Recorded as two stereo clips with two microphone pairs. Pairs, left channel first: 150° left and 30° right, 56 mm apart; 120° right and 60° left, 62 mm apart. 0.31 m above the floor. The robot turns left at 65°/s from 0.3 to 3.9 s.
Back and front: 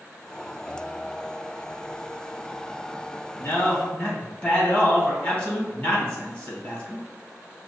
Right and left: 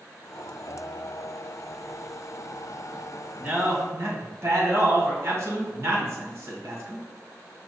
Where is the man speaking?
125° left, 1.9 m; by 7.1 s 90° left, 1.9 m.